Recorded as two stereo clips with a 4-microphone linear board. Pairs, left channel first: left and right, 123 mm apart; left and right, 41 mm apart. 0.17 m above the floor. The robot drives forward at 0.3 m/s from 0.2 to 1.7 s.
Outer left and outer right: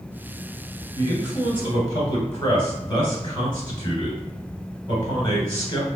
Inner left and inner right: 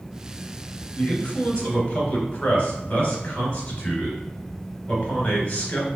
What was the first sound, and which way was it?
A man speaking, 20° left (ahead or behind).